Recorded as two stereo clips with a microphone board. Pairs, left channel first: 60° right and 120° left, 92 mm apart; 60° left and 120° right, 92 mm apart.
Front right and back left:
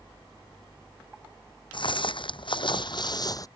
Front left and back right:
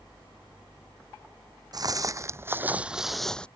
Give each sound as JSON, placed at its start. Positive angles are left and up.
{"t": 1.7, "sound": "footsteps", "azimuth_deg": -80}